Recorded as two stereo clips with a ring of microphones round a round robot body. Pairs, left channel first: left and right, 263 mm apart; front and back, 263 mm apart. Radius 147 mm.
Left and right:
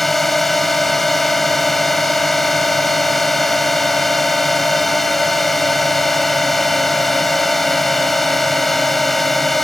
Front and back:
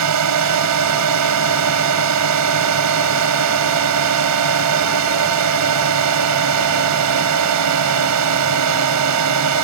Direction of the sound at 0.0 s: Straight behind.